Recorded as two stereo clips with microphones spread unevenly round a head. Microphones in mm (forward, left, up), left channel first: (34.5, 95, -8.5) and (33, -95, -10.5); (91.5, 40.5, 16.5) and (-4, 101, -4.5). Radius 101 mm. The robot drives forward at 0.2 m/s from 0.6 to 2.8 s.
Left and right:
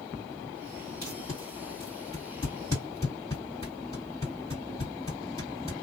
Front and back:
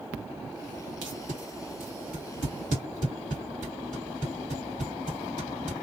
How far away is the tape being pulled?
About 1.6 m.